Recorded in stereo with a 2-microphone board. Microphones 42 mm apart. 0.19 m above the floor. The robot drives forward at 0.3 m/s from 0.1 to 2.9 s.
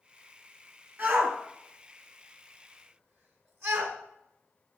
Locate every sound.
1.0 s a shout: 50° right (ahead or behind), 1.8 m; by 4.0 s 55° right (ahead or behind), 1.7 m